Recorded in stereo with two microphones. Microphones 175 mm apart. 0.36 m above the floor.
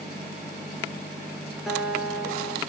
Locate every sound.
1.7 s a guitar: 5° right (ahead or behind), 6 m